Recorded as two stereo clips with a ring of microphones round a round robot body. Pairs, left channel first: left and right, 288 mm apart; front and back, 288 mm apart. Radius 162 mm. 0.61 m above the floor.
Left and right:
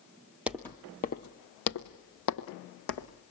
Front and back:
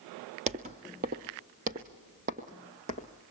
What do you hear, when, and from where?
0.5 s footsteps: 170° right, 0.6 m; by 3.1 s 110° left, 1.6 m